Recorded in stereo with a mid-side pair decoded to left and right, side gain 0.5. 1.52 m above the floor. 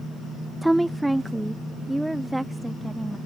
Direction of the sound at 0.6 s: 10° right.